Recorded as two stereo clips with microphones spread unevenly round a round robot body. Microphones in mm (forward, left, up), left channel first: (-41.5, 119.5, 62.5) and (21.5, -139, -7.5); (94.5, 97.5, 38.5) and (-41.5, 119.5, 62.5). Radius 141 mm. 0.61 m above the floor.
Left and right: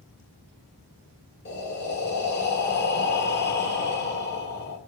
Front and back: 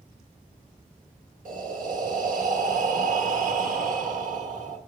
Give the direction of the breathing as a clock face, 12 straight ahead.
7 o'clock.